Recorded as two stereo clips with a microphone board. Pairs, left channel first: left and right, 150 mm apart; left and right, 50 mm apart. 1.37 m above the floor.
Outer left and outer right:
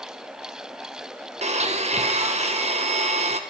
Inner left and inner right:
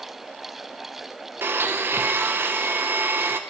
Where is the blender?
45° right (ahead or behind), 0.5 m.